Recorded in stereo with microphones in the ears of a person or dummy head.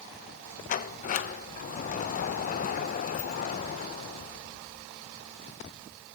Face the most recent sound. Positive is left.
turn(degrees=40)  # may be behind; listen again after turning